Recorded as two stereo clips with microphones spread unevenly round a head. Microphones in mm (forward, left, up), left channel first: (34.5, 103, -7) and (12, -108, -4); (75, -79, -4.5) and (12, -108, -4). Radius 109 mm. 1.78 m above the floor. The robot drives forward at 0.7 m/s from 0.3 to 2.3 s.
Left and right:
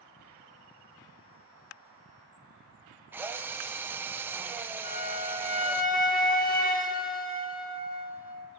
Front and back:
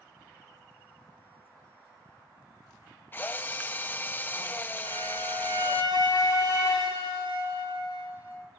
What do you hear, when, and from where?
3.1 s a drill: 20° right, 0.8 m
4.8 s a flute: 30° left, 1.9 m